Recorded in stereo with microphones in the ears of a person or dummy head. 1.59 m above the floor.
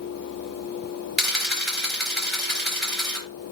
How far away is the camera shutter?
About 4.5 m.